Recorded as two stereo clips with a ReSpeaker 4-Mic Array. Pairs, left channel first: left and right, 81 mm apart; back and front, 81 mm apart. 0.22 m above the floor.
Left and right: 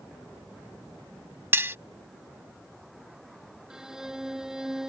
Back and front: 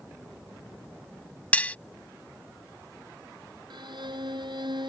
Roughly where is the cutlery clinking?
Behind right.